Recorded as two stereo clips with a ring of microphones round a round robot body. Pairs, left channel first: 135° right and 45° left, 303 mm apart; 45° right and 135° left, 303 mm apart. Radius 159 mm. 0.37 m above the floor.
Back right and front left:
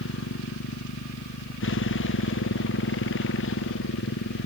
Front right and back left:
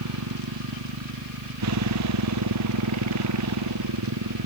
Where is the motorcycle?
170° left.